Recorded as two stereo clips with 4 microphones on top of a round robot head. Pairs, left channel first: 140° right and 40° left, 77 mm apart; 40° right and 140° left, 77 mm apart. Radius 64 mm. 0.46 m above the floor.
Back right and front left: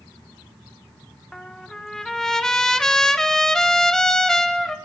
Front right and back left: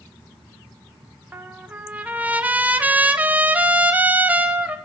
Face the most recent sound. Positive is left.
turn(degrees=150)